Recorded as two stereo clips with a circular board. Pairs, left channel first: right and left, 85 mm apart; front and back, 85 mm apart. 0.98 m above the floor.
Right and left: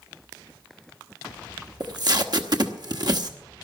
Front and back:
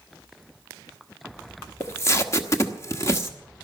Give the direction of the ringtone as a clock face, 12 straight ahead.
I don't hear a ringtone.